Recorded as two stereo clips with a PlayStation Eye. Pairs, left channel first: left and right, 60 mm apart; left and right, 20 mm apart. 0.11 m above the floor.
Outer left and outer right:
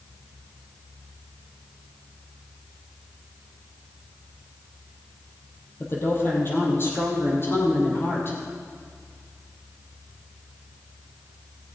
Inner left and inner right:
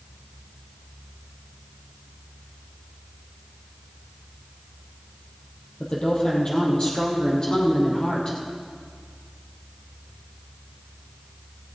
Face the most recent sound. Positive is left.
turn(degrees=40)  # may be behind; listen again after turning